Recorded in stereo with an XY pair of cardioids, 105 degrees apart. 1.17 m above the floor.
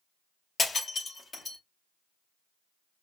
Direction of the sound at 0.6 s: 35° left.